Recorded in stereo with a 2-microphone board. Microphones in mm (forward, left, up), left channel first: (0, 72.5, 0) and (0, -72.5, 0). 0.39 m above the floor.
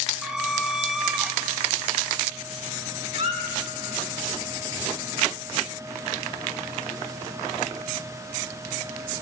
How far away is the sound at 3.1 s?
About 1.3 m.